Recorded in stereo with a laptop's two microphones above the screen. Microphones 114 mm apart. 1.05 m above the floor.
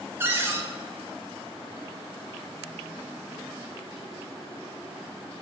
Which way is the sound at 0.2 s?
20° right (ahead or behind).